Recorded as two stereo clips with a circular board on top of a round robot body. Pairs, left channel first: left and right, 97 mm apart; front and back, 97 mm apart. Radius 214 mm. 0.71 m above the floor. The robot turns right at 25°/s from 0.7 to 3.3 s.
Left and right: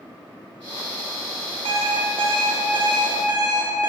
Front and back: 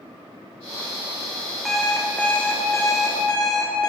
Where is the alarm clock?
90° right, 1.2 m; by 3.9 s 50° right, 1.2 m.